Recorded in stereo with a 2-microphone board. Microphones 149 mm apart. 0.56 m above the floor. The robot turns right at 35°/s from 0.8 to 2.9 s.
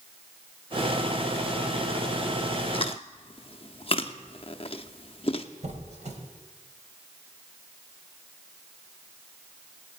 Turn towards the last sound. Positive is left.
turn(degrees=-55)  # may be behind; listen again after turning